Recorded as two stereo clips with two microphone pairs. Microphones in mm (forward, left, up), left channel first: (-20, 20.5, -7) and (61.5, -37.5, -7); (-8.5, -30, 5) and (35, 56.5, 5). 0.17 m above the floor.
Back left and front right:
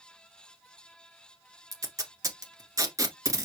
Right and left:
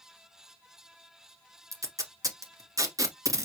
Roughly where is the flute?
No flute in this recording.